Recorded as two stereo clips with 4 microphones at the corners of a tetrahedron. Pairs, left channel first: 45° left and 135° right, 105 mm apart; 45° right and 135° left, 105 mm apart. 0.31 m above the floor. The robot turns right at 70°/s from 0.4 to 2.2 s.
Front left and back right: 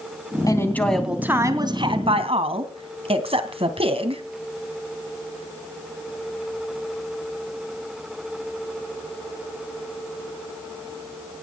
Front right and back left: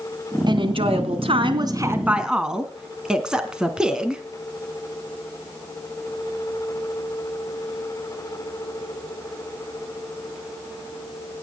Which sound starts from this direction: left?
A woman speaking, at 0.5 s.